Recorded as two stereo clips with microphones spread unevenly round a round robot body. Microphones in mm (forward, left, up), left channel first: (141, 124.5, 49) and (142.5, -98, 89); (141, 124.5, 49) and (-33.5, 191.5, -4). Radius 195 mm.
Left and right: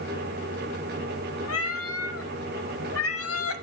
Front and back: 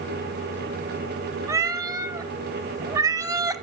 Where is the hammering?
I don't hear hammering.